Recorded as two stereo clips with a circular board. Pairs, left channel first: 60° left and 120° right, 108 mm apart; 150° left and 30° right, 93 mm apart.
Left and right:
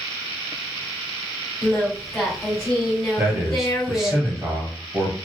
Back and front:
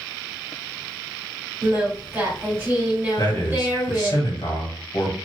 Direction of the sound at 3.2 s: 155° left.